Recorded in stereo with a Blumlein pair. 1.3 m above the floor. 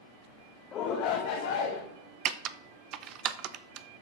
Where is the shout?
30° left, 1.3 m; by 1.8 s 65° left, 2 m.